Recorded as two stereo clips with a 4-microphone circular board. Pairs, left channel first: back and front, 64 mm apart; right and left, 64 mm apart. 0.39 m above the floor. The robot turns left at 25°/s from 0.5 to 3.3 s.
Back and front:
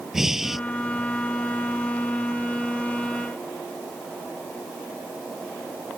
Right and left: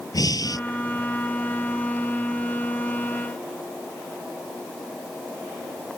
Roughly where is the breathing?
Right.